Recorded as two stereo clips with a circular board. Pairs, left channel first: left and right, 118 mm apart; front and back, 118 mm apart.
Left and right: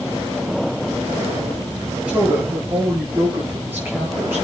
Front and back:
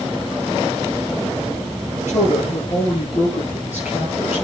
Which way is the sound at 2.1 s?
10° right.